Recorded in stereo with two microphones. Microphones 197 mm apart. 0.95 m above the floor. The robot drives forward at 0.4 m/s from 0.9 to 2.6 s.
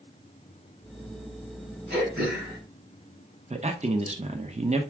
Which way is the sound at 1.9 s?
55° right (ahead or behind).